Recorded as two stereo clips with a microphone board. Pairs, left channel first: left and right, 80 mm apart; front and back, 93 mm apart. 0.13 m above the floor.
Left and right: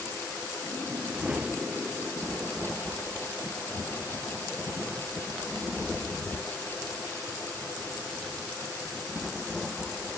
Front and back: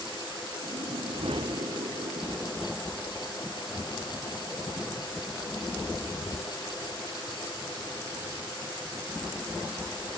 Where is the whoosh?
165° right.